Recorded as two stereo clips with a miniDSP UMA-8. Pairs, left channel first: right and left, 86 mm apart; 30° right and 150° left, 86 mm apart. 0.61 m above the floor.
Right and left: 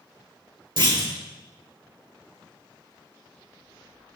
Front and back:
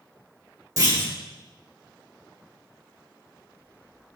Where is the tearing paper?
I don't hear tearing paper.